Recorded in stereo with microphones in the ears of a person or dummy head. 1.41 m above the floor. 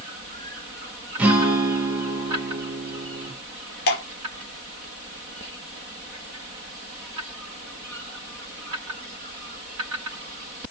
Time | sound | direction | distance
1.2 | a guitar | 10° right (ahead or behind) | 0.6 m
3.9 | dripping | 45° left (ahead or behind) | 0.5 m